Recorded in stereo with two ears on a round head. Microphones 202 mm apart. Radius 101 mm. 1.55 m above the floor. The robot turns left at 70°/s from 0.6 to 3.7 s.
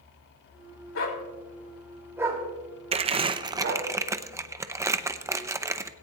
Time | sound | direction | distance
0.9 | a dog barking | 65° left (ahead or behind) | 2.5 m
2.9 | crumpling | 25° right (ahead or behind) | 0.6 m